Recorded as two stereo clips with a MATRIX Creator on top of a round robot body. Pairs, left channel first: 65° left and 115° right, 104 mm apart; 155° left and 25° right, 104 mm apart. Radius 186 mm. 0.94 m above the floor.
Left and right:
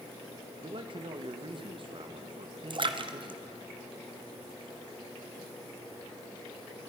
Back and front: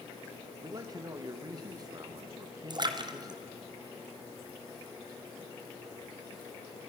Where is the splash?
70° right, 1.4 m.